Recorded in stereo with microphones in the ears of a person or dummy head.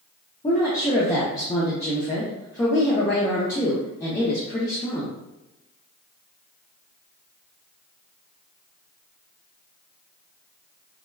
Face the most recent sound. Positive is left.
turn(degrees=15)  # may be behind; listen again after turning